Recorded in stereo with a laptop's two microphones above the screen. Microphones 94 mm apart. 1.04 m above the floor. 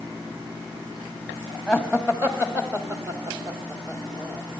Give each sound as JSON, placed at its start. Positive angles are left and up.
{"t": 1.7, "sound": "laughter", "side_deg": -10, "distance_m": 2.0}